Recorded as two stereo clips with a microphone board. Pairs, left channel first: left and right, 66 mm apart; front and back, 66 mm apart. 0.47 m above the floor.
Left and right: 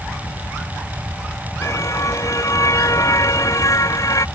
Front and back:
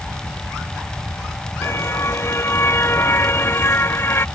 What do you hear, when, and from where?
1.6 s a car horn: 50° left; by 4.2 s 55° left